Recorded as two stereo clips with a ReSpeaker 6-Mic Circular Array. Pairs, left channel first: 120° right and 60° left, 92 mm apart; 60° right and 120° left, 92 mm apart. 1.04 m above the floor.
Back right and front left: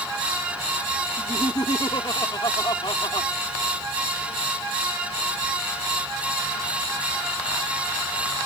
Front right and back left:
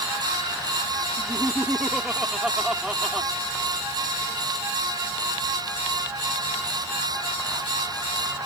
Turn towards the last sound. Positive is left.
turn(degrees=-155)